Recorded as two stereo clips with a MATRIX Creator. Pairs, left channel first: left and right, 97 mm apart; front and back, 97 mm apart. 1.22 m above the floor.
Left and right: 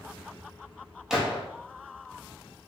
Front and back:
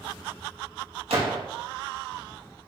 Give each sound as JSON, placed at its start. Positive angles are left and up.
{"t": 1.1, "sound": "a gunshot", "azimuth_deg": -175, "distance_m": 1.6}